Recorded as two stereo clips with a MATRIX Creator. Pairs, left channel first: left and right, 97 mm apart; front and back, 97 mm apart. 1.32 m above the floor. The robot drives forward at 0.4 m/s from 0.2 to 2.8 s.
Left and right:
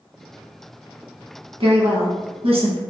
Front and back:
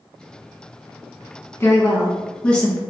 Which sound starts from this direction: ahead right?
A woman speaking, at 1.6 s.